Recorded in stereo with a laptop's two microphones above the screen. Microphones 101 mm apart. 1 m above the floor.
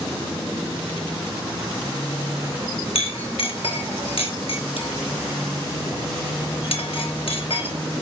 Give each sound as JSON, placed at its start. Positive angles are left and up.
{"t": 3.0, "sound": "a clink", "side_deg": 65, "distance_m": 1.3}